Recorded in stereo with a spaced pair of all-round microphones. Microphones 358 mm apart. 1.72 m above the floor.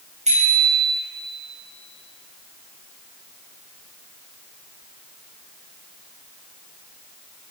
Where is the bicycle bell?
20° right (ahead or behind), 7.5 m.